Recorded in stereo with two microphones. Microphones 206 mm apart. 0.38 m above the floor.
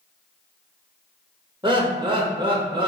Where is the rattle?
I don't hear a rattle.